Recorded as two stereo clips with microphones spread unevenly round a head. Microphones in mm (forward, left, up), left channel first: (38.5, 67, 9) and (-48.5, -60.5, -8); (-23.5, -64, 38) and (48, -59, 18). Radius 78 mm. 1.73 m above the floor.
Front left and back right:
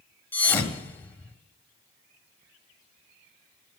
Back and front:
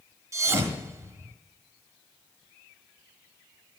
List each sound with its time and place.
0.3 s a thud: 40° left, 1.6 m